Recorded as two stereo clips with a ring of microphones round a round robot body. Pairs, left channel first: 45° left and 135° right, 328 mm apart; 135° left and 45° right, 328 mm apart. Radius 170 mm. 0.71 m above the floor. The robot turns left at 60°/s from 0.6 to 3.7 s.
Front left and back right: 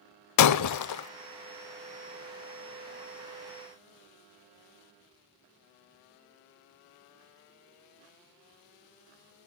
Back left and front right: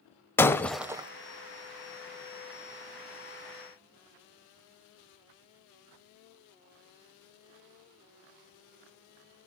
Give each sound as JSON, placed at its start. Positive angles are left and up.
{"t": 0.4, "sound": "breaking glass", "azimuth_deg": 55, "distance_m": 0.6}